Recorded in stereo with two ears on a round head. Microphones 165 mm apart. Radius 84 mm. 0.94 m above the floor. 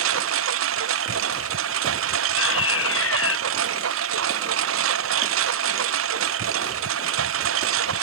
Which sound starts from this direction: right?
A lawn mower, at 0.0 s.